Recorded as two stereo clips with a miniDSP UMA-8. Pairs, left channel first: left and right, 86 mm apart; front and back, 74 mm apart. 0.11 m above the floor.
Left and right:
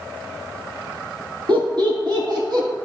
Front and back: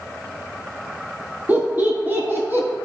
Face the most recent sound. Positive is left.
turn(degrees=-120)